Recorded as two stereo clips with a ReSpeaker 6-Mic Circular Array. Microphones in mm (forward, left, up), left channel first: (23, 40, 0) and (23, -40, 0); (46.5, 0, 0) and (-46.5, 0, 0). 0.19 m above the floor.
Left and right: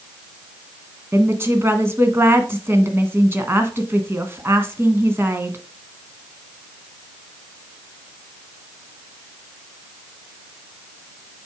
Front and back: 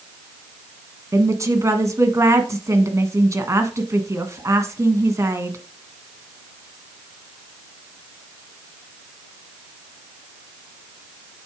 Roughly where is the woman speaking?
Behind right.